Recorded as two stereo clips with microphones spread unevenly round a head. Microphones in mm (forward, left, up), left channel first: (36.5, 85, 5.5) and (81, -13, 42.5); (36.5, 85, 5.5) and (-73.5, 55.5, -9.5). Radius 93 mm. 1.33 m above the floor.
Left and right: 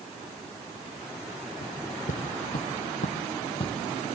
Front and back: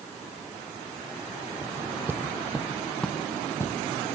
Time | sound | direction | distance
1.6 | footsteps | 130° left | 3 m